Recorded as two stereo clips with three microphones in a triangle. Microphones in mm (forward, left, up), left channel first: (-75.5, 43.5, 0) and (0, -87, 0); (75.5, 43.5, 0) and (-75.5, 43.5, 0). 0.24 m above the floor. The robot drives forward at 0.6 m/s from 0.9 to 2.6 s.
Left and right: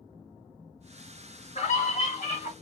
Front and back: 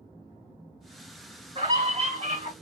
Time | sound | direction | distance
1.6 | a scream | 135° left | 2 m